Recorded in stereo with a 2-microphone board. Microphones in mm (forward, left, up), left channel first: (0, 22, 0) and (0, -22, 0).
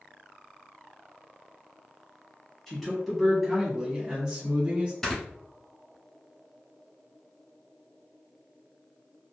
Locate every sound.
2.7 s a man speaking: 5° left (ahead or behind), 1.1 m; by 4.9 s 30° right (ahead or behind), 1.3 m
5.0 s snoring: 10° left (ahead or behind), 1.3 m